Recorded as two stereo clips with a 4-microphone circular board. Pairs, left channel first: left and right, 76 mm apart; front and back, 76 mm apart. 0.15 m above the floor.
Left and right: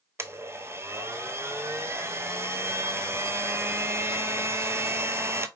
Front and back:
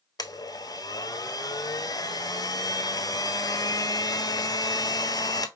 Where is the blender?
35° right, 0.5 m.